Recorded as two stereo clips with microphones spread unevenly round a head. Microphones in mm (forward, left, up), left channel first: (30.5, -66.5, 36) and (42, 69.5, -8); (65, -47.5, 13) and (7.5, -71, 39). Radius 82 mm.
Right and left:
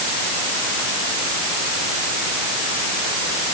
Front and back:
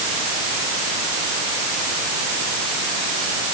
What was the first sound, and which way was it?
Only background noise.